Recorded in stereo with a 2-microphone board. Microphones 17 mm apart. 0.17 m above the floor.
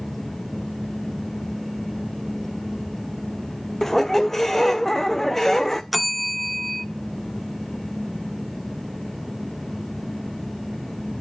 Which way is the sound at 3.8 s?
15° left (ahead or behind).